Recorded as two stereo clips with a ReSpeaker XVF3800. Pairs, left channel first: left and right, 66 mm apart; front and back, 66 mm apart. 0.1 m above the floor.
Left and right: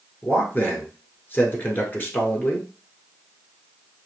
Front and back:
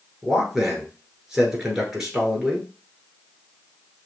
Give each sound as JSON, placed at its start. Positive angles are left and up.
{"t": 0.2, "sound": "a man speaking", "azimuth_deg": 105, "distance_m": 1.3}